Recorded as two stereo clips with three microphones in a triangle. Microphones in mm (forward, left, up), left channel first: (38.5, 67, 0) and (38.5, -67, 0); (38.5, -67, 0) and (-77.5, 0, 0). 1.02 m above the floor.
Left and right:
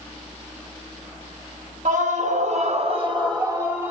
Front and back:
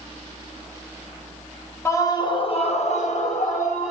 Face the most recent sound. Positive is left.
turn(degrees=-15)